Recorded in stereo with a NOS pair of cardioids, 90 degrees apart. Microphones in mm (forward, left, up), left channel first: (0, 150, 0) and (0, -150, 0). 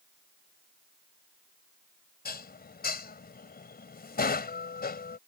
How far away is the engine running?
No engine running in this recording.